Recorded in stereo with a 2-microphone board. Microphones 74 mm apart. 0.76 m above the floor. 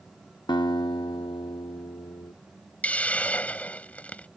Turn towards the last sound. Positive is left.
turn(degrees=20)  # may be behind; listen again after turning